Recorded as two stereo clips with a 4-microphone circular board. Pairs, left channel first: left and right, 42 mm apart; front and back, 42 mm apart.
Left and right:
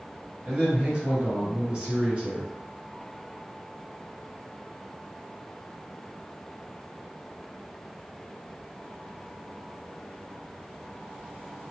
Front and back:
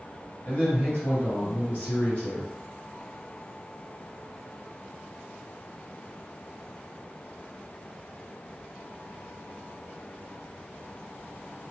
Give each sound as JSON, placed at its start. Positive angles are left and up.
{"t": 0.5, "sound": "a man speaking", "azimuth_deg": -35, "distance_m": 1.9}